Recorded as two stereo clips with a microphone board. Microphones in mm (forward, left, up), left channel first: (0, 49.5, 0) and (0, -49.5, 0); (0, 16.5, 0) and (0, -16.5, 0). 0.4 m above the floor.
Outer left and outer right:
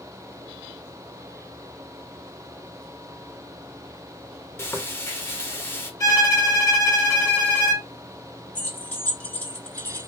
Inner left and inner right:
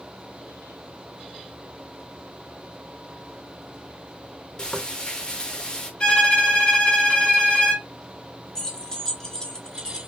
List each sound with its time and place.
4.6 s frying: 25° left (ahead or behind), 0.9 m
6.0 s a violin: 35° left (ahead or behind), 1.5 m
8.6 s keys jangling: 20° left (ahead or behind), 1.0 m